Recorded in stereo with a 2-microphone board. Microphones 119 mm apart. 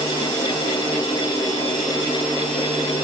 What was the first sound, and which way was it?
Only background noise.